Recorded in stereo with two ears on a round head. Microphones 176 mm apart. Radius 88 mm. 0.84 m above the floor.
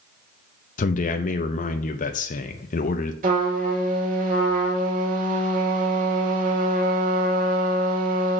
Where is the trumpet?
45° right (ahead or behind), 1.9 m.